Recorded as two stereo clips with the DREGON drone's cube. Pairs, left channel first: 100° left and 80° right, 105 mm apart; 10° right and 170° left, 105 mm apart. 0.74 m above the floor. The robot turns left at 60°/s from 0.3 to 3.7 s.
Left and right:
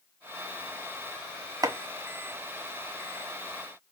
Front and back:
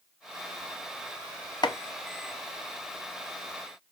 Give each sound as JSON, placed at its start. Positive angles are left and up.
{"t": 1.6, "sound": "chopping", "azimuth_deg": -40, "distance_m": 0.6}